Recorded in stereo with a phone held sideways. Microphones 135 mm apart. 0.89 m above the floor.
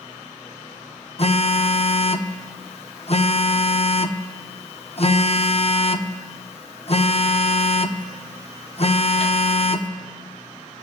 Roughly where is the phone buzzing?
Left.